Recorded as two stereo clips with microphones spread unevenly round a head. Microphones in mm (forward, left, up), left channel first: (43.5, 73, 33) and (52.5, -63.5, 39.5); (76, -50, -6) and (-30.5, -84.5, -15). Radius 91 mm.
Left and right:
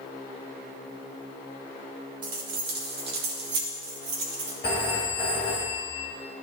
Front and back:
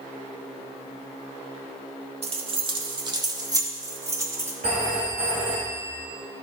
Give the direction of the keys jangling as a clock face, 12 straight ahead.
4 o'clock.